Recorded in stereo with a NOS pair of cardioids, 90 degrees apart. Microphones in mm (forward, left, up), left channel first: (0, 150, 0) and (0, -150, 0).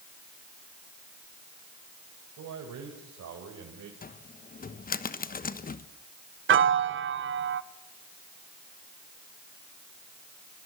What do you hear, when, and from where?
2.4 s a man speaking: 65° right, 5.5 m; by 3.9 s 55° right, 4 m
4.0 s a cupboard door: 30° left, 1.2 m
6.5 s a piano: 40° right, 0.9 m